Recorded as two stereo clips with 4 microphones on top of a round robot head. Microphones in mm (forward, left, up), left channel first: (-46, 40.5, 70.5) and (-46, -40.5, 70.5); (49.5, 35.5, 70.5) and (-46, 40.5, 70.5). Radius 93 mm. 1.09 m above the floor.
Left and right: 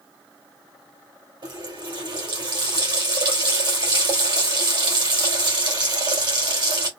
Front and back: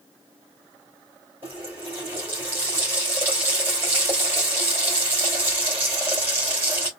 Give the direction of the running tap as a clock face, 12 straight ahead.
4 o'clock.